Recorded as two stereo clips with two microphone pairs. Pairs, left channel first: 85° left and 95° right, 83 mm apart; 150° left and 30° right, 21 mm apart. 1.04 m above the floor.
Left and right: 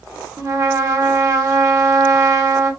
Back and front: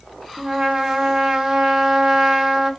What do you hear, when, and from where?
0.4 s a trumpet: 70° right, 0.7 m